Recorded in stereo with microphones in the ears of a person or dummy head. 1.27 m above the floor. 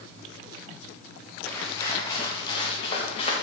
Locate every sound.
1.5 s footsteps: 10° left (ahead or behind), 3.5 m; by 3.3 s 35° left (ahead or behind), 4.5 m